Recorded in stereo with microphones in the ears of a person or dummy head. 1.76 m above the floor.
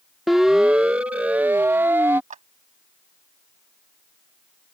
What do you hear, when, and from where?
0.3 s a siren: centre (ahead or behind); by 2.2 s 10° right (ahead or behind)
2.3 s a clap: 45° right (ahead or behind)